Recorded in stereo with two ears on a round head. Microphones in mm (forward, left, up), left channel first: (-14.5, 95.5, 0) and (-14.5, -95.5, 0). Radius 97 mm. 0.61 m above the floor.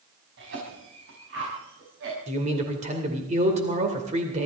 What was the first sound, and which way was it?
A cough, 60° right (ahead or behind).